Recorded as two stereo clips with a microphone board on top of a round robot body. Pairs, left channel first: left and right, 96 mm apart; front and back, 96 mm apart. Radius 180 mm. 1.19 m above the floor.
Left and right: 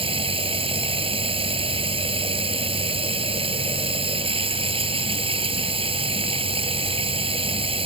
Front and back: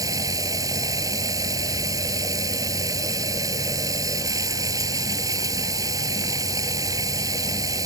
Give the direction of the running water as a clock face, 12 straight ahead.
4 o'clock.